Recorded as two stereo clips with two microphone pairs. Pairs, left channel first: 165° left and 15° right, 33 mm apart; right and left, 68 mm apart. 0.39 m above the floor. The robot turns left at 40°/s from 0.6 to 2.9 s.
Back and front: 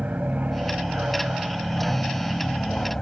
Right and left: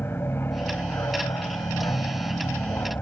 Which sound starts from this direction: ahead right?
An aircraft, at 0.0 s.